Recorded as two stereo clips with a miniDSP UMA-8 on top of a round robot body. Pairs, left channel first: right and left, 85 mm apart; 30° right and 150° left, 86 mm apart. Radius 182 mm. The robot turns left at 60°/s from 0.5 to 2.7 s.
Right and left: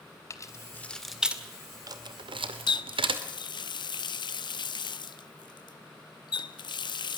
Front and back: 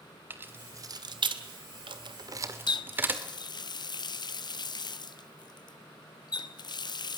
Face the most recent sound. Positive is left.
turn(degrees=-60)